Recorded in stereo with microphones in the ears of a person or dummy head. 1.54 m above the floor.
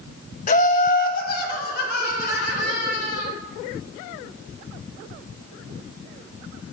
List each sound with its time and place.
0.5 s laughter: 45° left (ahead or behind), 0.8 m; by 3.3 s 60° left (ahead or behind), 3.5 m